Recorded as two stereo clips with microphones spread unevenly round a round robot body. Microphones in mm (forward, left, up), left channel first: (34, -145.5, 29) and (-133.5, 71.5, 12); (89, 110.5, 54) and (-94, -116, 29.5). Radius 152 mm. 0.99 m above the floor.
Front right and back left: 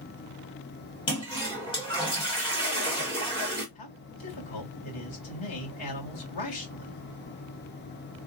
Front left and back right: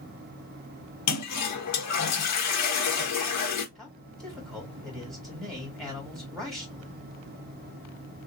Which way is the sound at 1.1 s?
20° left.